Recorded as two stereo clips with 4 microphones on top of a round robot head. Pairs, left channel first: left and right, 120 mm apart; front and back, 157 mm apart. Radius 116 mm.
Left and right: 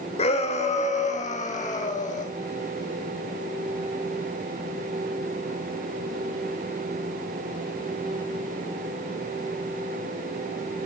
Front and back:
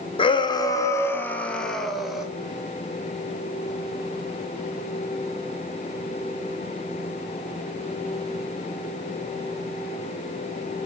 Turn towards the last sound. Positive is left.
turn(degrees=95)